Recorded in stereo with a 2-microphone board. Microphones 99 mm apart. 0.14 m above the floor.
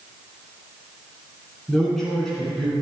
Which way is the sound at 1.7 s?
Centre (ahead or behind).